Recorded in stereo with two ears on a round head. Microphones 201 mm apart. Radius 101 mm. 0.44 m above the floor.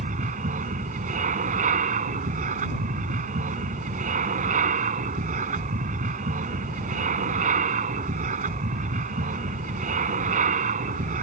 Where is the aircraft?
35° right (ahead or behind).